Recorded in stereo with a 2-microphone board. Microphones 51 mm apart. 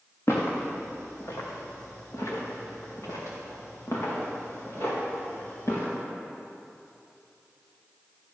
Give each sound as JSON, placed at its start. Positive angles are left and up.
{"t": 0.3, "sound": "footsteps", "side_deg": 60, "distance_m": 3.0}